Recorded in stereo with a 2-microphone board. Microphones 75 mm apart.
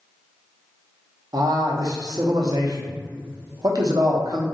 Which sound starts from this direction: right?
A man speaking, at 1.3 s.